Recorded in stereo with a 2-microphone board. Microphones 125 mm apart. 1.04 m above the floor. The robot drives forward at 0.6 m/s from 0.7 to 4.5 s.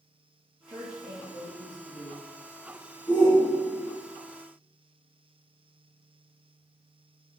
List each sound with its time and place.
0.7 s a woman speaking: 60° right (ahead or behind), 1.0 m; by 2.2 s 50° right (ahead or behind), 1.0 m
3.1 s a shout: 35° left (ahead or behind), 0.9 m; by 4.0 s 40° left (ahead or behind), 0.8 m